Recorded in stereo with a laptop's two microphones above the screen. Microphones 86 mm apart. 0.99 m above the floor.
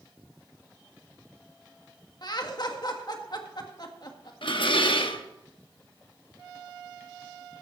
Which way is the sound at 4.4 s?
75° left (ahead or behind).